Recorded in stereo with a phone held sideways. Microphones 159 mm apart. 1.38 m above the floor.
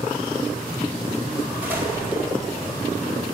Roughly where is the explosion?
Centre.